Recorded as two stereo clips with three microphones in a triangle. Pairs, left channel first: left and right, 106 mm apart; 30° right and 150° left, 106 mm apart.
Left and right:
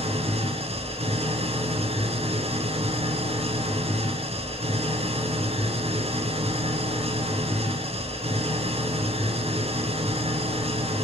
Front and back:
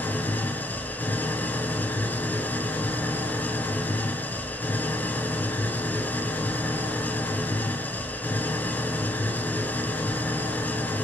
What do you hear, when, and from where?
0.0 s an engine running: 105° right, 1.9 m